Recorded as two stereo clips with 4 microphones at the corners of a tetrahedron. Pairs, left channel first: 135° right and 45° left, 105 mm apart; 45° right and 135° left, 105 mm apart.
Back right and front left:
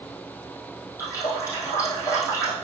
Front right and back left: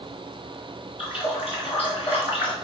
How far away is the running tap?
About 4 m.